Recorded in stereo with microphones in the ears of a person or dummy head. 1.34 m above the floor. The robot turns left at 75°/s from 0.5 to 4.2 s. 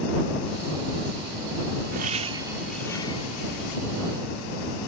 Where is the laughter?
130° right; by 3.8 s 95° left.